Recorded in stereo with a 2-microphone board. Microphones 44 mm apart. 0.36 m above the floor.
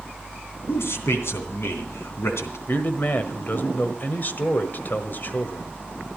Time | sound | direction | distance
0.7 | a man speaking | 70° left (ahead or behind) | 3 m
2.7 | a man speaking | 45° left (ahead or behind) | 1.5 m